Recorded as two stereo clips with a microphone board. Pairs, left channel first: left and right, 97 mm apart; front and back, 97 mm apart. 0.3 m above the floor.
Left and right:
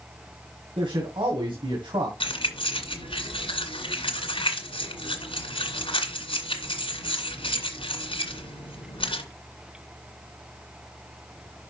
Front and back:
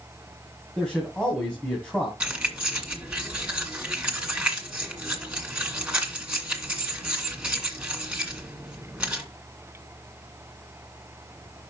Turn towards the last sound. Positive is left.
turn(degrees=100)